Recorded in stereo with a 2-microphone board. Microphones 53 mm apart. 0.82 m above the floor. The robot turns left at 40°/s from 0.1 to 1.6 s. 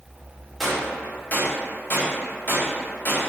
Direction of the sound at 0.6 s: Centre (ahead or behind).